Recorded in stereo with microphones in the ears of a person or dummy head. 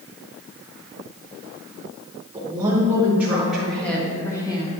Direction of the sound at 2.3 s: 20° right (ahead or behind).